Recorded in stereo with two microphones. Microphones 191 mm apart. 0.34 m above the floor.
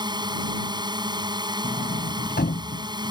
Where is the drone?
20° right (ahead or behind).